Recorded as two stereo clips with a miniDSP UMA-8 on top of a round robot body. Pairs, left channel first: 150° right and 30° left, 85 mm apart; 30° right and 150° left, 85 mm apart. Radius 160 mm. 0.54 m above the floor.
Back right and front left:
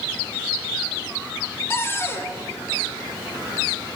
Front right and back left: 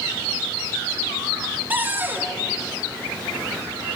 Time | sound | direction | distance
1.7 | a cupboard door | 170° right | 1.3 m